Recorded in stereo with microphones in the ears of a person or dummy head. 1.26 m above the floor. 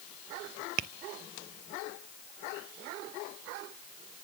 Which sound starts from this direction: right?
Tapping, at 0.8 s.